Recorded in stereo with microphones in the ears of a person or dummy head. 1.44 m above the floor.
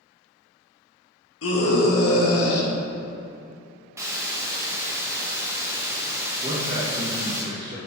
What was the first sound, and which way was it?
A scream, 70° left (ahead or behind).